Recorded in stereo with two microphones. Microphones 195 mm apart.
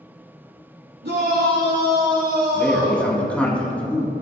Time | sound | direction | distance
1.0 | a shout | 65° right (ahead or behind) | 2.5 m
2.5 | a man speaking | 5° left (ahead or behind) | 2.5 m